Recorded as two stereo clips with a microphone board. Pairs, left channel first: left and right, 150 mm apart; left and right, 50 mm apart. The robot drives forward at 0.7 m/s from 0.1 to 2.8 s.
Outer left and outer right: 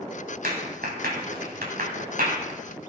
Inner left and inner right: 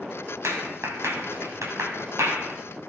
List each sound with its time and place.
0.4 s a clap: 85° right, 8 m; by 2.6 s 75° right (ahead or behind), 8 m